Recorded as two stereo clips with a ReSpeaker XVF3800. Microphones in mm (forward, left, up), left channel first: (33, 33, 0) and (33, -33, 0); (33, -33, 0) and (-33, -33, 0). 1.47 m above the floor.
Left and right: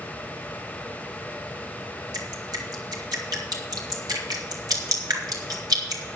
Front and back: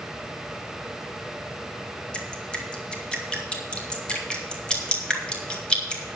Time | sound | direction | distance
2.1 | dripping | 75° right | 2.0 m